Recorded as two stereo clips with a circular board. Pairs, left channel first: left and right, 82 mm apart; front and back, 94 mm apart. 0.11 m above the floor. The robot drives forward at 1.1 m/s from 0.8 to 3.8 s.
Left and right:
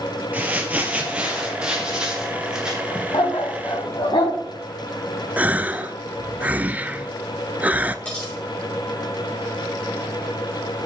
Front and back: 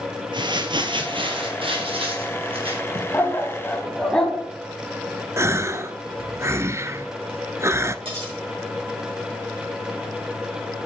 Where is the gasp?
145° right, 0.5 m.